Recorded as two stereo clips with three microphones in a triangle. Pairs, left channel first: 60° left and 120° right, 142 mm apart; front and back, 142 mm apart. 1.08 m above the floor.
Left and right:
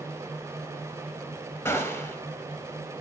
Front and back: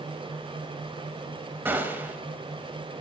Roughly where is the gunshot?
Behind left.